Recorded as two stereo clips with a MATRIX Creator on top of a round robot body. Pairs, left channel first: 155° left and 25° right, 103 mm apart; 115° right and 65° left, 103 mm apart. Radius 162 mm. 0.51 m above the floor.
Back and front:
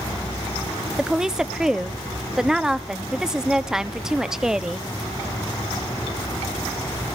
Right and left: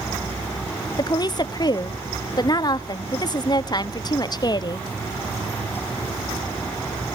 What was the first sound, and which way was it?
A woman speaking, 105° right.